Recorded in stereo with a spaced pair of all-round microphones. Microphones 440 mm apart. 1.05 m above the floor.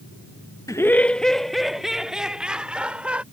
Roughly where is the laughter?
Centre.